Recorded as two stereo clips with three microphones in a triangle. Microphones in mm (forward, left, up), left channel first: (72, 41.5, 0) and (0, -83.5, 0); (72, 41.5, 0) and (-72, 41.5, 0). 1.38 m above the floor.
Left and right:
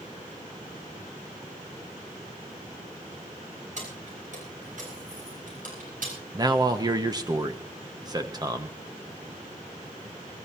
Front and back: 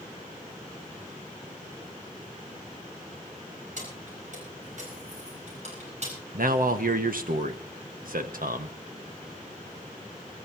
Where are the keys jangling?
150° right, 6.5 m; by 6.1 s 140° right, 7 m.